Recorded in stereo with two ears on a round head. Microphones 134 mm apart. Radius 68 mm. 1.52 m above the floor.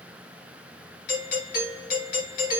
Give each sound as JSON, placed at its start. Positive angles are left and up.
{"t": 1.1, "sound": "a doorbell", "side_deg": 65, "distance_m": 1.9}